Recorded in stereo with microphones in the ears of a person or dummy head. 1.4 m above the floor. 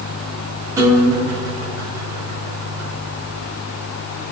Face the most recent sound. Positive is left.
turn(degrees=-15)  # may be behind; listen again after turning